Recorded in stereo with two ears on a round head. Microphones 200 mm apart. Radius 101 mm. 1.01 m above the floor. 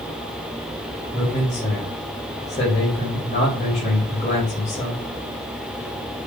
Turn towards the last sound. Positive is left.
turn(degrees=35)  # may be behind; listen again after turning